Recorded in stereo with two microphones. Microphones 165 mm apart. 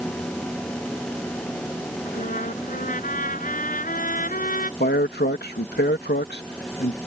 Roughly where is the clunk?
I don't hear a clunk.